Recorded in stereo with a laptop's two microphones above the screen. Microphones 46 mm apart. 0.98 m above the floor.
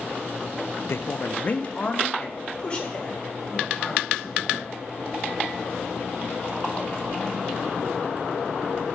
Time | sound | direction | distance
0.9 | a man speaking | 60° left (ahead or behind) | 0.5 m